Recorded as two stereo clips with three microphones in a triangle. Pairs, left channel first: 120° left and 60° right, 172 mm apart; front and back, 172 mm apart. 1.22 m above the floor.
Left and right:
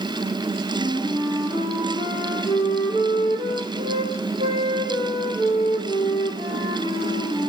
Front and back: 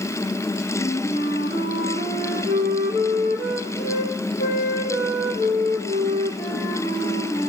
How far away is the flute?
About 1.4 m.